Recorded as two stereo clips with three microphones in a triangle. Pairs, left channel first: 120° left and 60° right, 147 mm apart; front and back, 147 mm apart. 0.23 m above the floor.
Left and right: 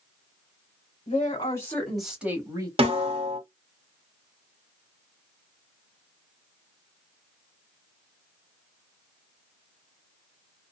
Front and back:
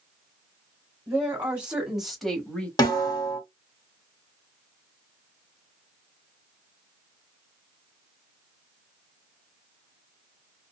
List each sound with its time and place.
1.1 s a woman speaking: 115° left, 1.1 m; by 2.7 s 70° right, 1.1 m
2.8 s a snare drum: 50° right, 1.4 m